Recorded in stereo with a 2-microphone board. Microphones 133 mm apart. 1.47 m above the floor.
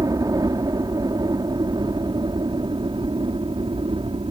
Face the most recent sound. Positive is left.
turn(degrees=-45)  # may be behind; listen again after turning